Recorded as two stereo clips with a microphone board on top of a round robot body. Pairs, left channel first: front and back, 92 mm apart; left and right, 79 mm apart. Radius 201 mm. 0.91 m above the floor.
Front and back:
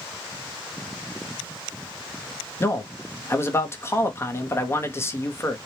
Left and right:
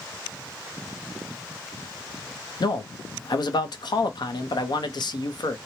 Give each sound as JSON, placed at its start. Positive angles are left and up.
{"t": 2.6, "sound": "a man speaking", "azimuth_deg": 60, "distance_m": 0.8}